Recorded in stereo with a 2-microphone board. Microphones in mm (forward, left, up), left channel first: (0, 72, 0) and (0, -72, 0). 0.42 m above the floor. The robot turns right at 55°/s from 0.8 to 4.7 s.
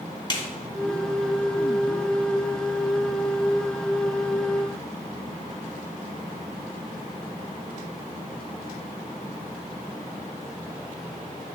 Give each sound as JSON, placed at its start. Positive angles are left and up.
{"t": 0.3, "sound": "a snare drum", "side_deg": 30, "distance_m": 1.1}